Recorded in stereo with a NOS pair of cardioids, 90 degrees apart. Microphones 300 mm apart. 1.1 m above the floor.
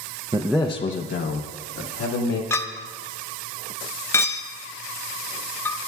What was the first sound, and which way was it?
A man speaking, 20° right.